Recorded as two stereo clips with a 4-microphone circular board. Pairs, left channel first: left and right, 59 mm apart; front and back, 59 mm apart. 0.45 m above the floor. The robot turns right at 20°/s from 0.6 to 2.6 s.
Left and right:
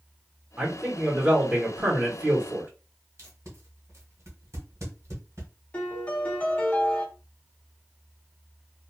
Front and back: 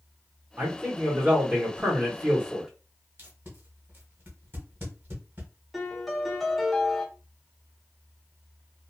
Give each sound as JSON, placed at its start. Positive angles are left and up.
{"t": 0.6, "sound": "a man speaking", "azimuth_deg": -160, "distance_m": 1.1}
{"t": 3.2, "sound": "tape being pulled", "azimuth_deg": -130, "distance_m": 1.2}
{"t": 5.7, "sound": "a piano", "azimuth_deg": 95, "distance_m": 1.0}